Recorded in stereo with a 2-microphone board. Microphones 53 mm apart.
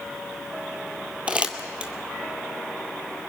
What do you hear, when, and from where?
1.3 s crumpling: 25° right (ahead or behind), 2.0 m